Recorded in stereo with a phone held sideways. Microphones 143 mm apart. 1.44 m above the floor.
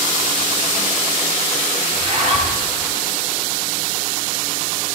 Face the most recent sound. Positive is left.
turn(degrees=-50)  # may be behind; listen again after turning